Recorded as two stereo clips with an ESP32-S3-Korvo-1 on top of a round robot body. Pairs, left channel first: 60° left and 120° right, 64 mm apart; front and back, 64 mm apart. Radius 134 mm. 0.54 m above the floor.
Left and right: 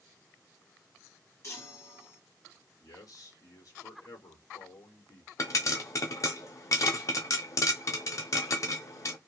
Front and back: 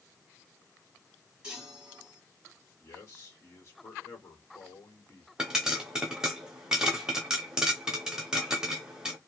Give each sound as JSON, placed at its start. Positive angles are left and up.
{"t": 1.4, "sound": "a chime", "azimuth_deg": 105, "distance_m": 1.5}
{"t": 2.8, "sound": "a man speaking", "azimuth_deg": 45, "distance_m": 1.6}
{"t": 5.4, "sound": "a pop", "azimuth_deg": 100, "distance_m": 0.6}